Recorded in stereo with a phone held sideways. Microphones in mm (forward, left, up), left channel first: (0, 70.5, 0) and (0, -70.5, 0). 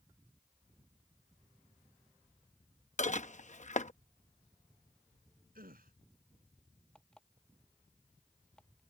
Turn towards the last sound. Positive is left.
turn(degrees=5)  # may be behind; listen again after turning